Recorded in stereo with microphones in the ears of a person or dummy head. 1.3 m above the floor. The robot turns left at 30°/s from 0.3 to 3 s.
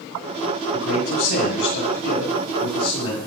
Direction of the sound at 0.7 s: 95° left.